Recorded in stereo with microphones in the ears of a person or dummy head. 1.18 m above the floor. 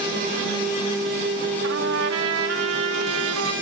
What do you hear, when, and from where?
1.6 s a trumpet: 80° right, 1.9 m